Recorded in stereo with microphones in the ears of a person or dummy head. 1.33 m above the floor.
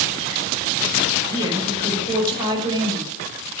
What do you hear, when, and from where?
1.3 s a woman speaking: 20° right (ahead or behind), 6 m